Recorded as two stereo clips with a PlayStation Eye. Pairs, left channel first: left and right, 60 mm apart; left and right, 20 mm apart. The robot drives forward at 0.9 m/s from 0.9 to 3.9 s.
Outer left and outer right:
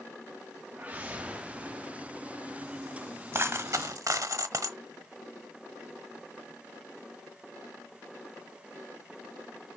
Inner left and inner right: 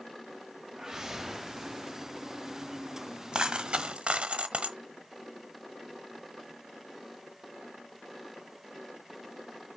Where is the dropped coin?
40° right (ahead or behind), 1.2 m; by 4.8 s 60° right (ahead or behind), 0.9 m.